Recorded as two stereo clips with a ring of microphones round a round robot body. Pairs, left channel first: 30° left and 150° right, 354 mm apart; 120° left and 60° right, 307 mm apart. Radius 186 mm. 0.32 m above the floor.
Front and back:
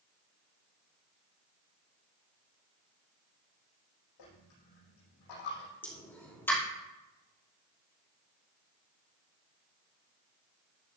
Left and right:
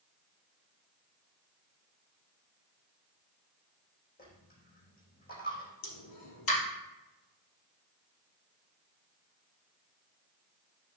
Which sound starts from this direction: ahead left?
A dropped coin, at 4.2 s.